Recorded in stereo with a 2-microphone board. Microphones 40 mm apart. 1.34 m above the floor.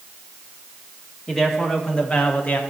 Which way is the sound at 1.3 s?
15° left (ahead or behind).